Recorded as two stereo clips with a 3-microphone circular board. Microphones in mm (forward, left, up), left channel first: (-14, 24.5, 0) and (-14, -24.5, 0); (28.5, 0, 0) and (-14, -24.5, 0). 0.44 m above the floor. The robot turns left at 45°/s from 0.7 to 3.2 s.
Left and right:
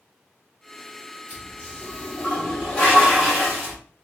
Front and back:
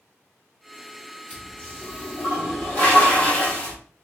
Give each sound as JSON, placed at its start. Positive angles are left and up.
{"t": 1.3, "sound": "a toilet flushing", "azimuth_deg": 90, "distance_m": 1.5}